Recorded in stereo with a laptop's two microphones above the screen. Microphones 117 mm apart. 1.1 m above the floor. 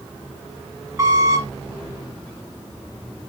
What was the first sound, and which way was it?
A squeak, 25° right (ahead or behind).